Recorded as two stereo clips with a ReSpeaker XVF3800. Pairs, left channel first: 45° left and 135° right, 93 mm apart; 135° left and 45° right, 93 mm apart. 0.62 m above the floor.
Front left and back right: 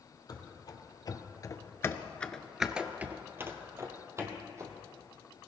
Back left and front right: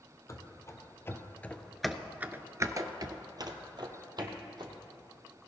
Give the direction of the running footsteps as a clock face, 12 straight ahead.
9 o'clock.